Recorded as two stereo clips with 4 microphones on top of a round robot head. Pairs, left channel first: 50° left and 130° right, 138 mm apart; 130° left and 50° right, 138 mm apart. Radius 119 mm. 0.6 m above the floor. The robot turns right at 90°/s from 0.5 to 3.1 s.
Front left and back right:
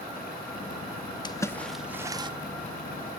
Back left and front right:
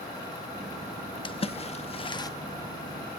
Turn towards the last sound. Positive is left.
turn(degrees=-100)